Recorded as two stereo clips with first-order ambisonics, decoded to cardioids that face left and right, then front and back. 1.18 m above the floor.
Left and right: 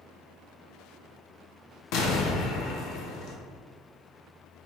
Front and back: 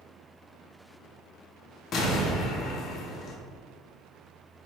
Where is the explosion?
60° left, 1.0 m.